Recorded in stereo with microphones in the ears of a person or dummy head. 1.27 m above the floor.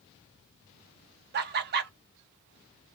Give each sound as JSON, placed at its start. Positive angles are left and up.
{"t": 1.3, "sound": "laughter", "side_deg": -45, "distance_m": 0.5}